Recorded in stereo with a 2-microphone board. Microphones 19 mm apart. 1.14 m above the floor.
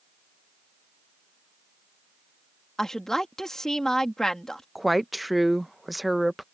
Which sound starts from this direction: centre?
A woman speaking, at 4.8 s.